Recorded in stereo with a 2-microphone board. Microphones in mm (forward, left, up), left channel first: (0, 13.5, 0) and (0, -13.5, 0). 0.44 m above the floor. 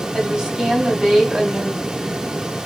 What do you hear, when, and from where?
0.1 s a woman speaking: 35° right (ahead or behind), 2 m